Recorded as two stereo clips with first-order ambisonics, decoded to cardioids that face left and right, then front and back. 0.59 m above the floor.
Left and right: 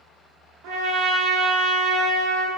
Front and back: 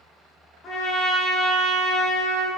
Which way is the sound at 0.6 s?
65° right.